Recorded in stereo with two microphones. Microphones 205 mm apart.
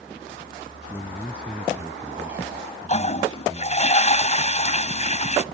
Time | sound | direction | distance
0.9 | a man speaking | 10° left (ahead or behind) | ?
2.9 | a toilet flushing | 35° left (ahead or behind) | ?